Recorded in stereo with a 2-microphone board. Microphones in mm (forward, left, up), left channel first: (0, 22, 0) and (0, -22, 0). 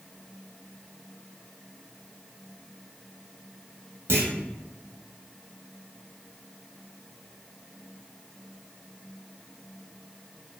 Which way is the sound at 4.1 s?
65° right (ahead or behind).